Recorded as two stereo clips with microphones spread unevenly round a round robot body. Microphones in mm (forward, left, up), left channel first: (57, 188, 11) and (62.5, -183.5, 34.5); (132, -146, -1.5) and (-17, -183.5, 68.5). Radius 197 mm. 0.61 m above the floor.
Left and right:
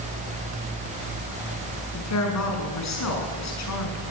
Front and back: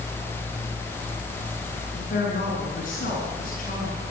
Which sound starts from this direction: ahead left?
A woman speaking, at 1.9 s.